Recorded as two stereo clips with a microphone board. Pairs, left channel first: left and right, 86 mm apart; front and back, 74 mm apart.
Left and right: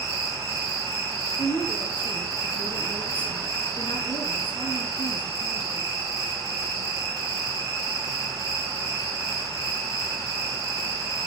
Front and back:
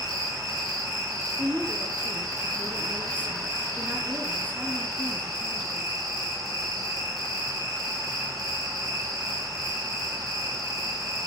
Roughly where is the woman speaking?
Left.